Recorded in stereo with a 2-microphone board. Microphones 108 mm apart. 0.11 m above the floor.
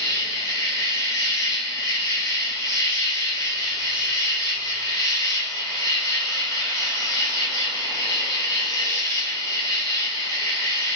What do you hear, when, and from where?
0.0 s an insect: 35° left (ahead or behind), 1.6 m